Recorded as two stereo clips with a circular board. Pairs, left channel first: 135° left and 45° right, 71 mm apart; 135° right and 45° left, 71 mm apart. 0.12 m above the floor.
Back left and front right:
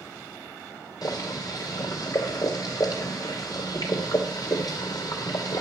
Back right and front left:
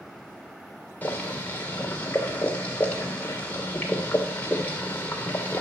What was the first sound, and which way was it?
Boiling, 160° left.